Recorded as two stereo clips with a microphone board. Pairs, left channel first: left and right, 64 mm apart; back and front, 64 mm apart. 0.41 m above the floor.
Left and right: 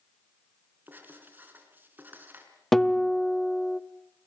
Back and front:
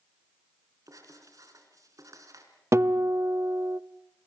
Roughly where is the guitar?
Ahead.